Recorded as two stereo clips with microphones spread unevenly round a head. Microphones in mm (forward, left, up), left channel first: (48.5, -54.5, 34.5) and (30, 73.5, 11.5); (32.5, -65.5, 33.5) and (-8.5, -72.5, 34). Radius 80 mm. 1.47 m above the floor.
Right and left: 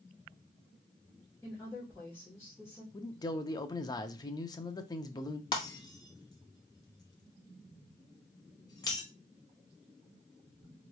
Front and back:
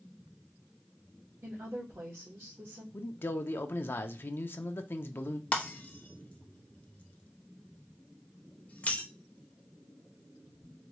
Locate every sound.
1.4 s a woman speaking: 160° right, 2 m
2.9 s a man speaking: 20° right, 0.7 m
5.5 s breaking glass: 35° right, 0.9 m